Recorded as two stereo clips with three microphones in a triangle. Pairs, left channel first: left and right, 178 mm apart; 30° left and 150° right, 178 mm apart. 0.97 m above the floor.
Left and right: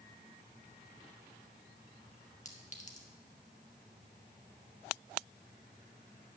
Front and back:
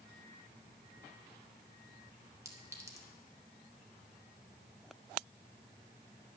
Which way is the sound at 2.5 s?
140° left.